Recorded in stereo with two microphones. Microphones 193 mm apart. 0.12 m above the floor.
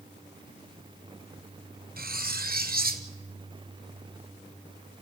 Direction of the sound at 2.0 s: 50° right (ahead or behind).